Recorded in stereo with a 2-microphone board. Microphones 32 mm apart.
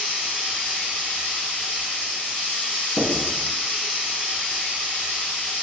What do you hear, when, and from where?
0.0 s running water: 40° left (ahead or behind), 1.3 m
3.0 s writing: 45° left (ahead or behind), 1.5 m